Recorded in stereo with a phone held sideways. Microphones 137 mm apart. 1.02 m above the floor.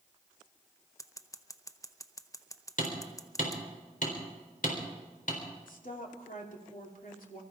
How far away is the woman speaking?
About 3 m.